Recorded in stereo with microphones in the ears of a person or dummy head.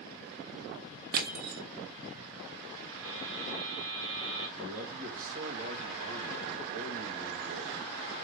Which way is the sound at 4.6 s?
45° right (ahead or behind).